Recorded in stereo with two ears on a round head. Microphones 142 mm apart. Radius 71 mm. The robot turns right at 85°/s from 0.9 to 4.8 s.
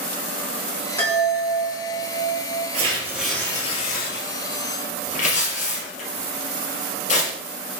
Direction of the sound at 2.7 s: 45° right (ahead or behind).